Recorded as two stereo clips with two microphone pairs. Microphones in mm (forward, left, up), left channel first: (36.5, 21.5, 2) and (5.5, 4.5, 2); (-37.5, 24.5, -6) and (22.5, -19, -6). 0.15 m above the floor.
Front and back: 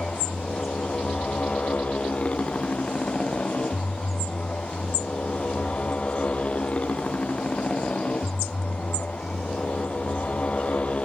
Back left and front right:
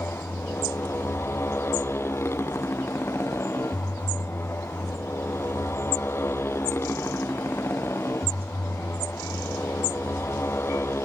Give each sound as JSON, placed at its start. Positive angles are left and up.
{"t": 0.0, "sound": "a motorcycle", "azimuth_deg": 85}